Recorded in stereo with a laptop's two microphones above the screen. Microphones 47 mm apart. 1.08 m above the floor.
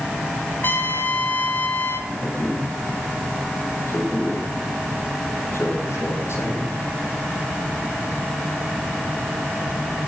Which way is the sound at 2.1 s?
65° left (ahead or behind).